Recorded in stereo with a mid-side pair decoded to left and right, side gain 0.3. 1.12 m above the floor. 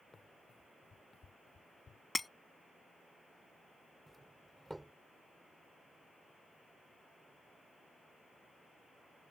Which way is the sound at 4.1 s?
15° right.